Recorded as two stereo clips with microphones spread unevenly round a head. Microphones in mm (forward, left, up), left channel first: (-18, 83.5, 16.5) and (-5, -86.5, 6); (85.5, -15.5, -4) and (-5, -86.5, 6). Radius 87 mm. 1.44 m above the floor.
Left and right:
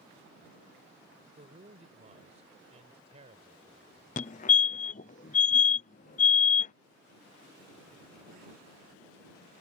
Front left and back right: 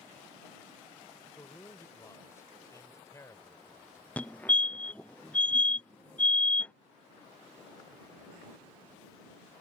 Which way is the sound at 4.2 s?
105° left.